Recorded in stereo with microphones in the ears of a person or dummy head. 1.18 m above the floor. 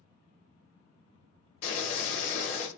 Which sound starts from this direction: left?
Boiling, at 1.6 s.